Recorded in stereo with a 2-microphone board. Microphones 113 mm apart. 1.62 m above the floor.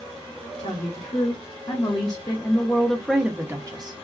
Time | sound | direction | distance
0.6 | a woman speaking | 60° left (ahead or behind) | 1.6 m